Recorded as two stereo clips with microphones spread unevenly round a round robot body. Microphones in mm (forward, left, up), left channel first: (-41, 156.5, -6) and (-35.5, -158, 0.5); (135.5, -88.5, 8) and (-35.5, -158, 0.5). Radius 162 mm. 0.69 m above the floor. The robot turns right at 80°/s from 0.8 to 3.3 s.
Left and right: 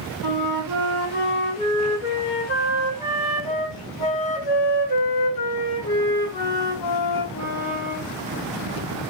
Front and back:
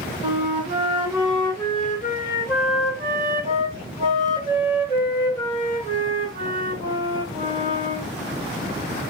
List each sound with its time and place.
0.2 s a flute: 110° right, 2 m; by 8.1 s 90° left, 2 m